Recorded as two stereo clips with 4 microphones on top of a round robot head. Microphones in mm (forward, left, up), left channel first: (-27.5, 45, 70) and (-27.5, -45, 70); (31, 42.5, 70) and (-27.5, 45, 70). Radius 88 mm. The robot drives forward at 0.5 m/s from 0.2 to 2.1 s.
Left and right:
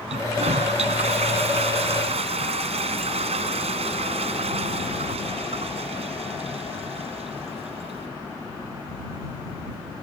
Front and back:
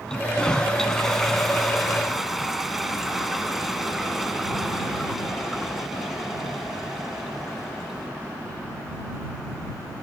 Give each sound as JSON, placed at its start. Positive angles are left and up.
{"t": 0.1, "sound": "a toilet flushing", "azimuth_deg": -85}